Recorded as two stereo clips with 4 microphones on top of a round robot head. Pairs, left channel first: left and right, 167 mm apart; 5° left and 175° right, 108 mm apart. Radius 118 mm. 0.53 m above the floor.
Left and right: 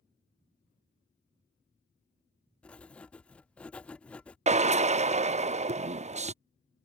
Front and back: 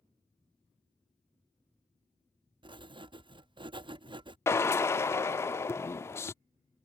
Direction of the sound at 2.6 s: 170° left.